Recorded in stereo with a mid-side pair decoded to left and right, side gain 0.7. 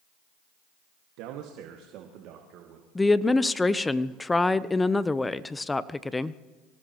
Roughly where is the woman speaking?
Ahead.